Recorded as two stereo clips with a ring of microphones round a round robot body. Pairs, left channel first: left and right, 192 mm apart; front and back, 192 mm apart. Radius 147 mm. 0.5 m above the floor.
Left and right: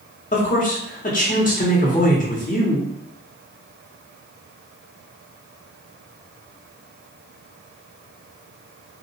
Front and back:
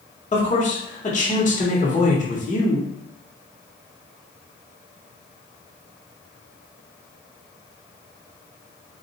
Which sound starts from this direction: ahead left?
A man speaking, at 0.3 s.